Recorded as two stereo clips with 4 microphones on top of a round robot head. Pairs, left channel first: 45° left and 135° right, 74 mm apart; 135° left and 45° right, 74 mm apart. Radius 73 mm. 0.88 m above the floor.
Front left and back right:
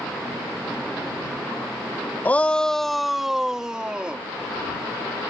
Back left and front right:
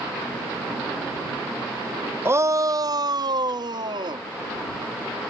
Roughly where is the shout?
Ahead.